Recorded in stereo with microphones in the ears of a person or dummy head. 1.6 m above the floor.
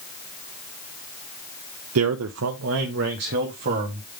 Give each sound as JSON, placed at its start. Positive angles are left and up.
{"t": 1.9, "sound": "a man speaking", "side_deg": -85, "distance_m": 0.6}